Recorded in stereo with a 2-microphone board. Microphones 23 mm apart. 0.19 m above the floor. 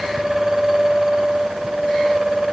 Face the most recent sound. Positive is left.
No sound to turn to.